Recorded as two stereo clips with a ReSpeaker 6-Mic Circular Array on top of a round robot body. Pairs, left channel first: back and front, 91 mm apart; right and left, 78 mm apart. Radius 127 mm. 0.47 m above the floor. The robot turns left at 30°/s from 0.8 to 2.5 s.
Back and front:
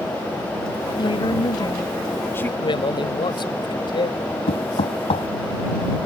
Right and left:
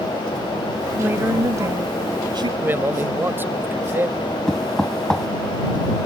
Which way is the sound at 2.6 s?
150° left.